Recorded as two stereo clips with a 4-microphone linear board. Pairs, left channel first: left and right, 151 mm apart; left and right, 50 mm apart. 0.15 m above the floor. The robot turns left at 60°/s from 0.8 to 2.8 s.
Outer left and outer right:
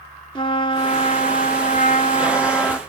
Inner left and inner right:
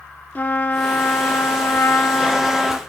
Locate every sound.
0.3 s a trumpet: 135° left, 0.9 m; by 2.8 s 20° left, 0.9 m